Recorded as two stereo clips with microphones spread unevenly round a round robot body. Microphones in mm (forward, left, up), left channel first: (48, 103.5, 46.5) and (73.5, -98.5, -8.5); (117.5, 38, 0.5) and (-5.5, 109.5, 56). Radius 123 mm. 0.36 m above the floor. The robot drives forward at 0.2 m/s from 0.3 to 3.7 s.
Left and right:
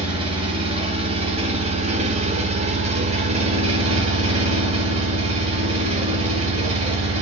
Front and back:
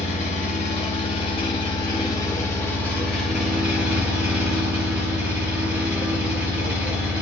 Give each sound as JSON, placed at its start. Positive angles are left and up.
{"t": 0.0, "sound": "an engine running", "azimuth_deg": -30, "distance_m": 0.7}